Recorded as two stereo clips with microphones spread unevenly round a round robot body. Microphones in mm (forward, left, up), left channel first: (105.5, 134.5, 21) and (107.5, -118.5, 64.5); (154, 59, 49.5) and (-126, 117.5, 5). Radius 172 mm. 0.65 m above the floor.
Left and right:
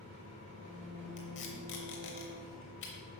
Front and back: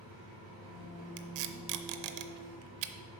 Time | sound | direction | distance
0.0 | an engine running | 145° right | 2.5 m
1.2 | tape being pulled | 150° left | 0.6 m